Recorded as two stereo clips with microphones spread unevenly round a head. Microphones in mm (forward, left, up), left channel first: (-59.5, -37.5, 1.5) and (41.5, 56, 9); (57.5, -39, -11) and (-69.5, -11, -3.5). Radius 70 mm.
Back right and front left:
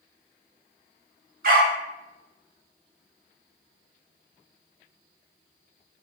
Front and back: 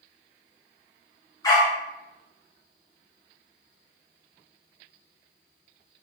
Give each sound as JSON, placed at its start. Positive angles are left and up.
{"t": 1.4, "sound": "a dog barking", "azimuth_deg": 55, "distance_m": 2.5}